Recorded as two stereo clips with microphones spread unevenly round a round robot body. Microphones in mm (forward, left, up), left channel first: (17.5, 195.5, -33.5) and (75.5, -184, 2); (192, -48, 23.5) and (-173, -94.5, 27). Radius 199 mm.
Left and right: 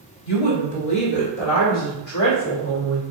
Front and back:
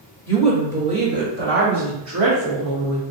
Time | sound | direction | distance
0.3 | a woman speaking | 90° left | 1.9 m